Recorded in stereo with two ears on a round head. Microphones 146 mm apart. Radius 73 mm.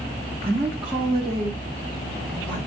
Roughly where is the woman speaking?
Centre.